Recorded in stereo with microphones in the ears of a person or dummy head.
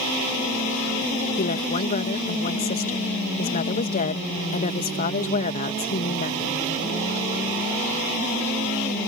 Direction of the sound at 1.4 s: 45° left (ahead or behind).